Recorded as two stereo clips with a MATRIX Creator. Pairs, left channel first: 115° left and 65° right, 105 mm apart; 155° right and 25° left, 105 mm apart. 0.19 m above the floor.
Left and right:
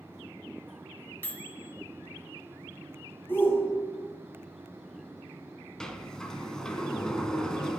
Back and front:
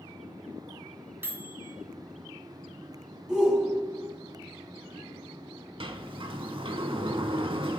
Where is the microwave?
65° left, 0.8 m.